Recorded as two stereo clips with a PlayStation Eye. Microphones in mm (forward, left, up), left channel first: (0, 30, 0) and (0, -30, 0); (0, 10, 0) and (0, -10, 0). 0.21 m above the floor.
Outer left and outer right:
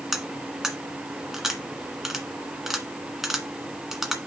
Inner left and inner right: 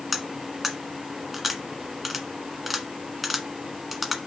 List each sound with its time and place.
0.1 s cutlery clinking: 5° right (ahead or behind), 1.4 m